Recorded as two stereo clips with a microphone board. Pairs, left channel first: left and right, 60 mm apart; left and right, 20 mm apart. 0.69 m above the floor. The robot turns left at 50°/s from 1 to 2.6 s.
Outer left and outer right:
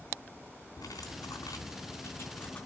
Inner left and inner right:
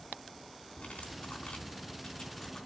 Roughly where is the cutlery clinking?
Left.